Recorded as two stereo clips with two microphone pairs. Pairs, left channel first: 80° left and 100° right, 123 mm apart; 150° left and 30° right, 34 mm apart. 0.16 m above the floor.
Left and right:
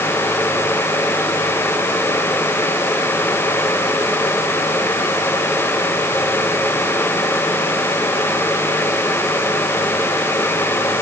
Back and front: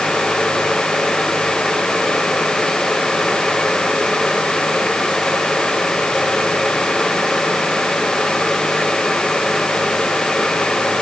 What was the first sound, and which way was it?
Only background noise.